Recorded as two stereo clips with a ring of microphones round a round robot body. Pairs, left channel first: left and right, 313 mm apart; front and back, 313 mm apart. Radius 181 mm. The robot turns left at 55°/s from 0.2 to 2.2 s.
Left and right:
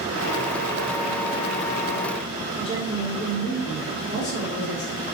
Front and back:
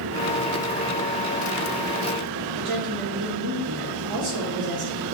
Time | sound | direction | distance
2.6 | a woman speaking | 155° left | 1.2 m